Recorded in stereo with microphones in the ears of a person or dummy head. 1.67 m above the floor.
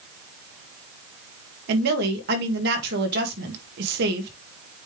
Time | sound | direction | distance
1.7 | a woman speaking | 60° right (ahead or behind) | 1.9 m